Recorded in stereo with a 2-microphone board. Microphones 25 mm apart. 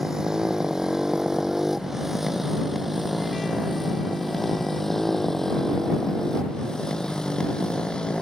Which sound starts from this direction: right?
A motorcycle, at 0.0 s.